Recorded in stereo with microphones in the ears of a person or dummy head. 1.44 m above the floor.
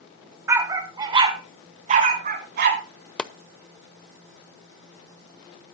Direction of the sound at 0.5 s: 15° right (ahead or behind).